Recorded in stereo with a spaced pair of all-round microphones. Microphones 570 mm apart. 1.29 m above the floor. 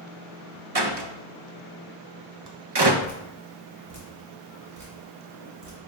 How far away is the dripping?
About 2 m.